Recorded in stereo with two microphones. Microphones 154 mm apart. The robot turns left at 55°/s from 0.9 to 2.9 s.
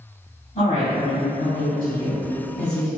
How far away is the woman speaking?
About 1.9 m.